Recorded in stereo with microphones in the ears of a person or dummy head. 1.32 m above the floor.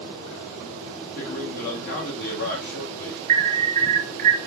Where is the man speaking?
55° left (ahead or behind), 1.3 m.